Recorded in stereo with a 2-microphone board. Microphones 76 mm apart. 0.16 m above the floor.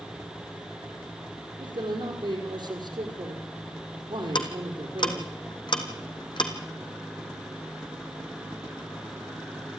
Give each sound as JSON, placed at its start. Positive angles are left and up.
{"t": 1.6, "sound": "a man speaking", "side_deg": -75, "distance_m": 5.5}
{"t": 4.3, "sound": "ticking", "side_deg": 80, "distance_m": 2.0}